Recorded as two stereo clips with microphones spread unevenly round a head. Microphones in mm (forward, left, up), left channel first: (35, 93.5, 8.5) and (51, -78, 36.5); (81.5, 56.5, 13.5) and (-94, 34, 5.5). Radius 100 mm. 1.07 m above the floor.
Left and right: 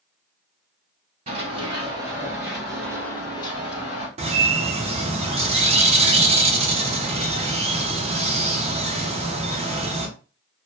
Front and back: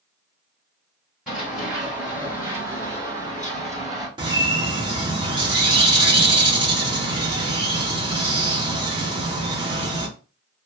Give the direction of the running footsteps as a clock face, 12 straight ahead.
3 o'clock.